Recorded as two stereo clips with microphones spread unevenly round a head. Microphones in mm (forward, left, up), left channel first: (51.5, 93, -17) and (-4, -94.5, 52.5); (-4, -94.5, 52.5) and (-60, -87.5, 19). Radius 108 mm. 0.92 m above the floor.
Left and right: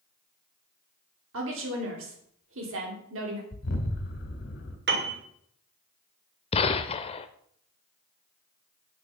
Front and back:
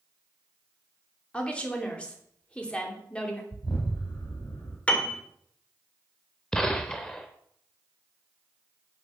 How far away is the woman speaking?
About 3 m.